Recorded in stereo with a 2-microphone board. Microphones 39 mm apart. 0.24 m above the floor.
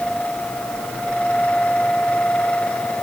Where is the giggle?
No giggle in this recording.